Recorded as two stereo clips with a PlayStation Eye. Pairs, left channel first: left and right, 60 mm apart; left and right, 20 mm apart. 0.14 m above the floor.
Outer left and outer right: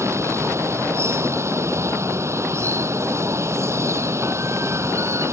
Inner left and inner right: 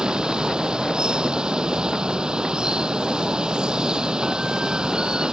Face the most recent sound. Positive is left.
turn(degrees=-50)  # may be behind; listen again after turning